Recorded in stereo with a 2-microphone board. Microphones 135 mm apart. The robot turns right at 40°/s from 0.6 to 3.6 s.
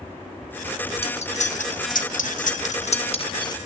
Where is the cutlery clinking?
50° left (ahead or behind), 1.0 m; by 3.6 s 30° left (ahead or behind), 1.0 m.